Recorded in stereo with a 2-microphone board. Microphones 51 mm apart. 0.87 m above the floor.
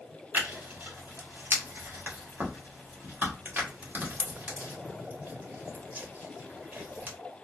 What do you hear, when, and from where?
0.3 s tearing paper: 35° right (ahead or behind), 1.1 m